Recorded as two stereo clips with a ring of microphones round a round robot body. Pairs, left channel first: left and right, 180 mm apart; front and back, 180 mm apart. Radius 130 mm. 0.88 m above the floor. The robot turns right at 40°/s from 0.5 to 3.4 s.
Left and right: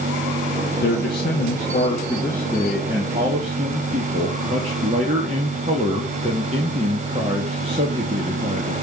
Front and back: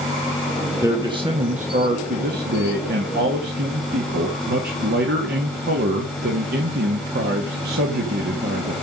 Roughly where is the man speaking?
Left.